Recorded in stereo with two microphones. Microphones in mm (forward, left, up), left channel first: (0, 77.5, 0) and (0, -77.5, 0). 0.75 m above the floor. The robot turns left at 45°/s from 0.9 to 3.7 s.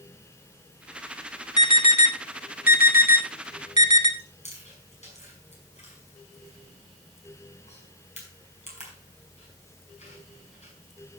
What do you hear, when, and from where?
1.6 s an alarm: 25° left (ahead or behind), 3.5 m; by 4.1 s 55° left (ahead or behind), 3.5 m
4.2 s chewing: 45° left (ahead or behind), 5.5 m